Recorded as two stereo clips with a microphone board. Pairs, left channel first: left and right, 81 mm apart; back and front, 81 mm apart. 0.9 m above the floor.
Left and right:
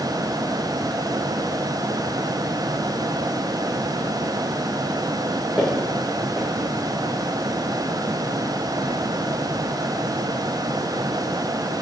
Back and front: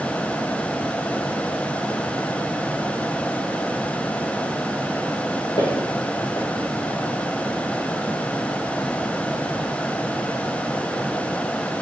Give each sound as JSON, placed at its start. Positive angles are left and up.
{"t": 5.6, "sound": "footsteps", "azimuth_deg": -175, "distance_m": 2.0}